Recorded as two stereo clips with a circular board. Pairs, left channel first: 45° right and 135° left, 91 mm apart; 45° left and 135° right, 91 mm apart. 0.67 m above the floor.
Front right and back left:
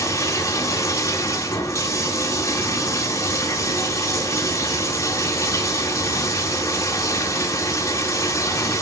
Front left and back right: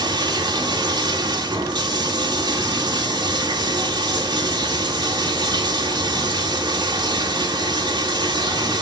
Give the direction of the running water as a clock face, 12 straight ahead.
3 o'clock.